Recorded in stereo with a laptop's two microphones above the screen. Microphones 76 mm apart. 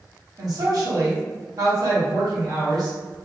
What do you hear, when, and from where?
0.4 s a woman speaking: 55° right (ahead or behind), 1.9 m